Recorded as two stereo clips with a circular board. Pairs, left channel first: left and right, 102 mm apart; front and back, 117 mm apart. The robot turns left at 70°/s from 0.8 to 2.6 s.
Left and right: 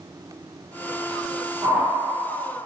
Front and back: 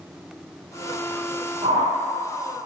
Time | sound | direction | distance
1.6 | a whoosh | 145° right | 3.5 m